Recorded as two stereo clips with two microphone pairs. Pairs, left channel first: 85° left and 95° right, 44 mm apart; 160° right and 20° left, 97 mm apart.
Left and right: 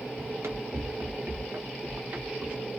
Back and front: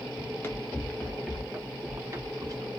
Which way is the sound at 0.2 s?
100° right.